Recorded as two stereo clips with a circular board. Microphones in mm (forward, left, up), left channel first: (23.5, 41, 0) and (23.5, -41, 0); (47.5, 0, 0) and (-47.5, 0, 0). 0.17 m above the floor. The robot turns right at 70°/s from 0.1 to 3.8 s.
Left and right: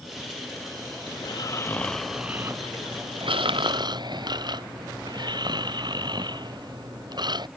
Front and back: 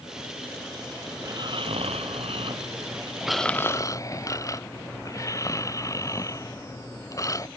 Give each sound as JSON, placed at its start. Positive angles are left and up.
{"t": 1.2, "sound": "snoring", "azimuth_deg": 120}